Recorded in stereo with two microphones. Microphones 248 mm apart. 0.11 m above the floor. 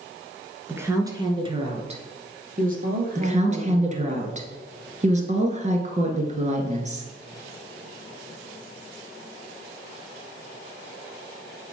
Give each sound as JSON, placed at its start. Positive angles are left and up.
{"t": 0.7, "sound": "a woman speaking", "side_deg": -10, "distance_m": 1.3}
{"t": 3.1, "sound": "a woman speaking", "side_deg": -30, "distance_m": 1.4}